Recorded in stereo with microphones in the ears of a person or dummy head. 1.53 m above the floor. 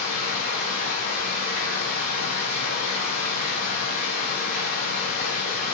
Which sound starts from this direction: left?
Running water, at 0.0 s.